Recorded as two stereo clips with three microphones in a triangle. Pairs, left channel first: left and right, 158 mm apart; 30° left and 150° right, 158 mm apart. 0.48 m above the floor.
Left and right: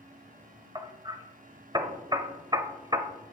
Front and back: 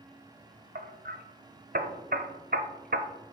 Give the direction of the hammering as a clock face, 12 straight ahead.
5 o'clock.